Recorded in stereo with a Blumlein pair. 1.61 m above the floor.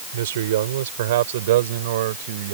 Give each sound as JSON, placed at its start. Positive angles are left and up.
{"t": 0.1, "sound": "a man speaking", "azimuth_deg": -60}